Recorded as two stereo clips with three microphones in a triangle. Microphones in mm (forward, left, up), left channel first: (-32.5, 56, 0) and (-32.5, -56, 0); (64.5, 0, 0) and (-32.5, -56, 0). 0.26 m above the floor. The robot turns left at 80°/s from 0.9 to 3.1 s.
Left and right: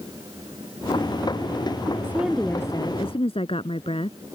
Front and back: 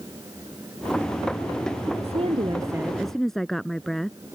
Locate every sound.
2.0 s a woman speaking: 155° right; by 4.2 s 120° left